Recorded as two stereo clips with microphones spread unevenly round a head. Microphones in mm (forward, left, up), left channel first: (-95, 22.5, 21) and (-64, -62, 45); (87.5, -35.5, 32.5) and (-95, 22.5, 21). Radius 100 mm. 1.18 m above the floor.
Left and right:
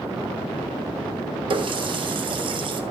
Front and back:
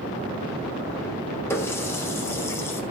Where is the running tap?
95° right, 1.6 m.